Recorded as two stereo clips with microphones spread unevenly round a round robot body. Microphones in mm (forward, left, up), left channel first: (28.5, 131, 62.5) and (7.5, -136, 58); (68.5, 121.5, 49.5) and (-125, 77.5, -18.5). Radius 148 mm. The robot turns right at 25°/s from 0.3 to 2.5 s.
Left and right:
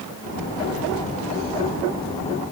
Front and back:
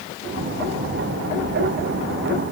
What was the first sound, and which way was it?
Only background noise.